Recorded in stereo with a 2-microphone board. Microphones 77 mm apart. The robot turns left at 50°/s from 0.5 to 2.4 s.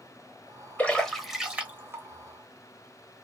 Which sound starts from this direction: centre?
A splash, at 0.8 s.